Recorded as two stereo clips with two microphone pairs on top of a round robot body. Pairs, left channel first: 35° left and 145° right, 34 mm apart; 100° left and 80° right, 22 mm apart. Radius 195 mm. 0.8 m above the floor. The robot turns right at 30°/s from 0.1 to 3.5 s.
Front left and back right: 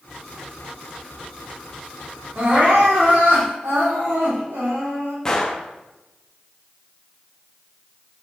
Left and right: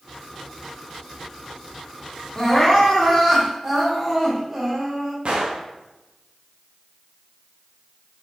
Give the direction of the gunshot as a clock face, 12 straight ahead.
1 o'clock.